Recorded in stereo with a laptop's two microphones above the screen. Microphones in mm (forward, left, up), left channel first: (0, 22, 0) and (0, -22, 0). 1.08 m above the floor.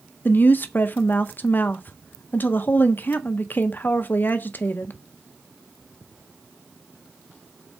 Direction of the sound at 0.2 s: 45° left (ahead or behind).